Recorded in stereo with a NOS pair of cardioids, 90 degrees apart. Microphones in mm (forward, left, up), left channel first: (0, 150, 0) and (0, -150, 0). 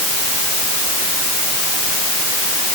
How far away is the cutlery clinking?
I don't hear cutlery clinking.